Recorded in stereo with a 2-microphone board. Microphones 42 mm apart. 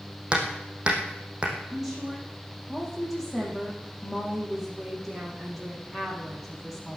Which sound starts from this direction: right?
Hammering, at 0.3 s.